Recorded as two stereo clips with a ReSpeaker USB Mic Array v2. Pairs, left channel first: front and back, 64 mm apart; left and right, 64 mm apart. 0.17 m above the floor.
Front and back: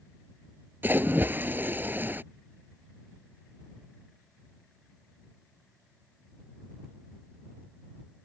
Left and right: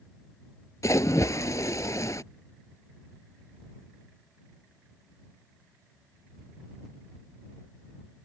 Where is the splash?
120° left.